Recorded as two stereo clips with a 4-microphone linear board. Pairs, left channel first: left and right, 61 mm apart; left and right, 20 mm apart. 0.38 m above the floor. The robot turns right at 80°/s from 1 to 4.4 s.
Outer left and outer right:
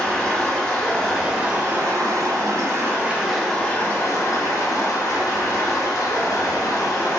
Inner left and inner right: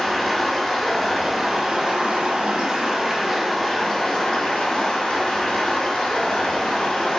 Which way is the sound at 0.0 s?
170° left.